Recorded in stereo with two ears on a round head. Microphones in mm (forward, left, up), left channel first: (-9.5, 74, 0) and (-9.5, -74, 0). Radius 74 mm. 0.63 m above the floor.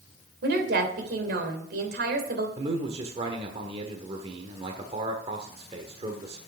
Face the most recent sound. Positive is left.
turn(degrees=-35)  # may be behind; listen again after turning